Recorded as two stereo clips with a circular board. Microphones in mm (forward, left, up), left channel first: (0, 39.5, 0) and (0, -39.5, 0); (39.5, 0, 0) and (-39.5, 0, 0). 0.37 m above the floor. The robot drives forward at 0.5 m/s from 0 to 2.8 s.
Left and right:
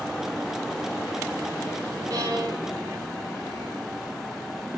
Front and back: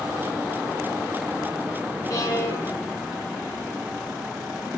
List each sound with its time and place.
2.1 s a violin: 50° right, 1.2 m; by 3.8 s 65° right, 1.0 m